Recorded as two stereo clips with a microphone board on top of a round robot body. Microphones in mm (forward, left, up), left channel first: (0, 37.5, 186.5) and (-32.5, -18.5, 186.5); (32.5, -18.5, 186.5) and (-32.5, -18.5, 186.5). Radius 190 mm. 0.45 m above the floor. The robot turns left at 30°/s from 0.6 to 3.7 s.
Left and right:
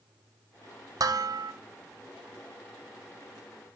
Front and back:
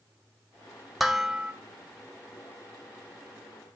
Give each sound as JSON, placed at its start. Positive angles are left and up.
{"t": 1.0, "sound": "dishes clattering", "azimuth_deg": -90, "distance_m": 1.1}